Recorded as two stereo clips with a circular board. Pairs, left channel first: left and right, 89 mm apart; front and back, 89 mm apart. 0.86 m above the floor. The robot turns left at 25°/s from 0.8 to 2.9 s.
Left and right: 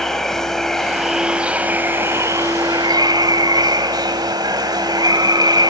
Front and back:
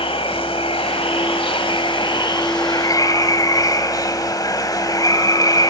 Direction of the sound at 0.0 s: 5° left.